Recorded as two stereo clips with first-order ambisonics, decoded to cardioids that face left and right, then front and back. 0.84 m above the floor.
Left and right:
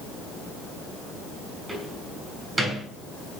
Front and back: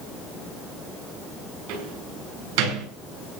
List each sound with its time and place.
1.7 s a door slam: 170° right, 8.5 m